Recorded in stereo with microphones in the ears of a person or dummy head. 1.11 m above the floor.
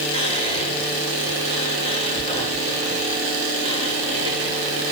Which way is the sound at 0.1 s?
25° left (ahead or behind).